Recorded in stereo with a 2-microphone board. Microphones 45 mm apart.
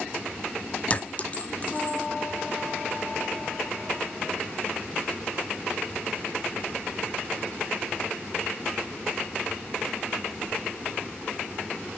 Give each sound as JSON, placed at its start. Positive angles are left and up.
{"t": 0.9, "sound": "a clink", "side_deg": 35, "distance_m": 0.7}